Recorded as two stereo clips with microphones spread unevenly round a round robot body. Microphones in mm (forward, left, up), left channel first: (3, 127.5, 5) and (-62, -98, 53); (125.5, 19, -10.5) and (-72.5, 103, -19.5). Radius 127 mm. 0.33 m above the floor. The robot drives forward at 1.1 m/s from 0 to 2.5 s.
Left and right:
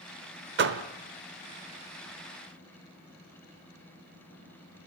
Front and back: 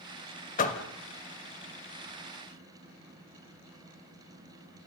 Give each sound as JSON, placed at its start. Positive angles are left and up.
{"t": 0.6, "sound": "a door slam", "azimuth_deg": -65, "distance_m": 1.1}